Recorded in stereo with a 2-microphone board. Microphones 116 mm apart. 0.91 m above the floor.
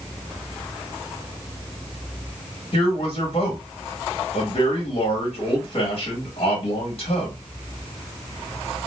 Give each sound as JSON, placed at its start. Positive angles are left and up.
{"t": 2.7, "sound": "a man speaking", "side_deg": 50, "distance_m": 1.2}